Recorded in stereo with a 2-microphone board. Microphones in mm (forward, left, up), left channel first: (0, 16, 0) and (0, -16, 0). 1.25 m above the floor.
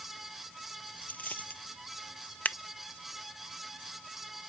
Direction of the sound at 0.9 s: 50° left (ahead or behind).